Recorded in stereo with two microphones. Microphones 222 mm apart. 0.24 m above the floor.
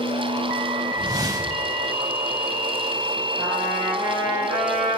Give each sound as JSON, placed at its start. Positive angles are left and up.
{"t": 1.0, "sound": "a whoosh", "side_deg": -15, "distance_m": 1.2}
{"t": 3.4, "sound": "a trumpet", "side_deg": -25, "distance_m": 3.5}